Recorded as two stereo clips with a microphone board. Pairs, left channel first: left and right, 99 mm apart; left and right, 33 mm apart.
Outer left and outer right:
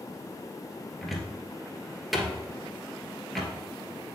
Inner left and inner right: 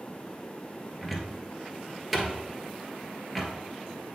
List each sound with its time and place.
1.0 s a cupboard door: centre (ahead or behind), 1.2 m